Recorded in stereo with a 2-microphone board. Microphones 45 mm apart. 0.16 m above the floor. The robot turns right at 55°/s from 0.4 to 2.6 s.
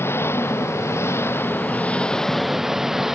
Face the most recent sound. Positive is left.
turn(degrees=-170)